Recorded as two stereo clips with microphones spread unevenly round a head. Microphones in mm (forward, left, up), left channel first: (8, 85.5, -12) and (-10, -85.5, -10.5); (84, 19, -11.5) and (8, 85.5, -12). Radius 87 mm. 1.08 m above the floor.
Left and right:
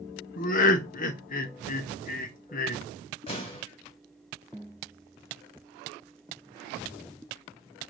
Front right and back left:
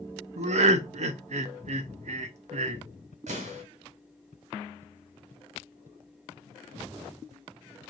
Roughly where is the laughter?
Behind left.